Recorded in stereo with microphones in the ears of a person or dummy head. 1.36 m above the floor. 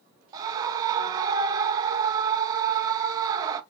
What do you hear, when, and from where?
0.3 s a scream: 25° right (ahead or behind), 0.7 m